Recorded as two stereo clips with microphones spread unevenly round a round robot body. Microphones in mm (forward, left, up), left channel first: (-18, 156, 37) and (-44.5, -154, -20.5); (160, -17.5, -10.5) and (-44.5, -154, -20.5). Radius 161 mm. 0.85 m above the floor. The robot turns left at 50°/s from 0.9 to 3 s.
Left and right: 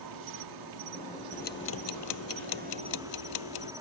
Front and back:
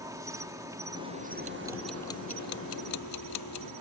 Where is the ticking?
150° left; by 3.7 s 65° left.